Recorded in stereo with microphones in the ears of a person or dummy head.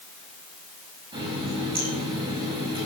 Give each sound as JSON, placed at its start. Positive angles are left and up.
{"t": 1.1, "sound": "a running tap", "side_deg": -20, "distance_m": 6.5}